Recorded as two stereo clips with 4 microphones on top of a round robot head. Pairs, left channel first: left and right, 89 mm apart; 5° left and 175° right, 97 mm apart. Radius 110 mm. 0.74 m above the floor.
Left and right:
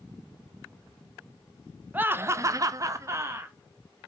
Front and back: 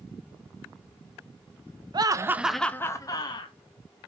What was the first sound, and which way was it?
Laughter, 155° right.